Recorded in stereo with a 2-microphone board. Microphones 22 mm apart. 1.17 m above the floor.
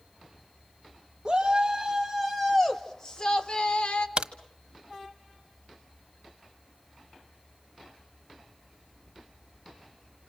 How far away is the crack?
About 1.3 m.